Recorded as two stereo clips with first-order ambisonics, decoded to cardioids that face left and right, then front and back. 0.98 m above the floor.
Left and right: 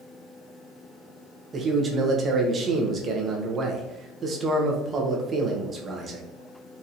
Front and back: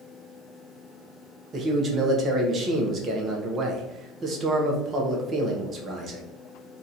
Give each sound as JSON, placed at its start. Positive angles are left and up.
{"t": 1.5, "sound": "a man speaking", "azimuth_deg": -140, "distance_m": 0.8}